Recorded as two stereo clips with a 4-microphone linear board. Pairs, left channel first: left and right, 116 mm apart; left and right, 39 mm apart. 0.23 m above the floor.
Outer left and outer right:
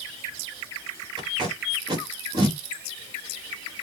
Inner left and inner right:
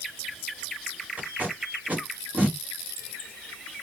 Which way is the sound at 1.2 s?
45° right (ahead or behind).